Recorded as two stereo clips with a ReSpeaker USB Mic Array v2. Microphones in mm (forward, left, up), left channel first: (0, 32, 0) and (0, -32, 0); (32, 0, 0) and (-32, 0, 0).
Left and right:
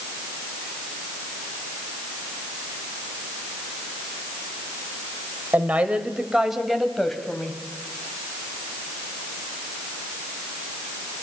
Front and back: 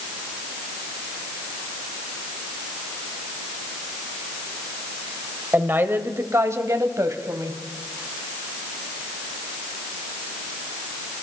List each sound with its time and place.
5.5 s a woman speaking: 140° right, 1.5 m; by 7.6 s 170° left, 2.5 m